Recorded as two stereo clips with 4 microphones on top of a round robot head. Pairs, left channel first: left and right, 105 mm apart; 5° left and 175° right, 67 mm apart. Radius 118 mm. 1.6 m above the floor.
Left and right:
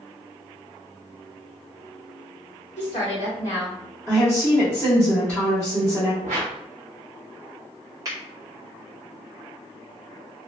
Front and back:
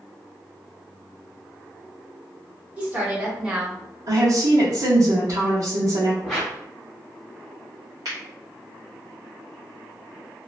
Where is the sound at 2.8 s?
115° left, 1.4 m; by 3.8 s 105° left, 0.8 m.